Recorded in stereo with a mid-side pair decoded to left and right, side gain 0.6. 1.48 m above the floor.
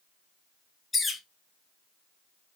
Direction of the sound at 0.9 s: 20° left.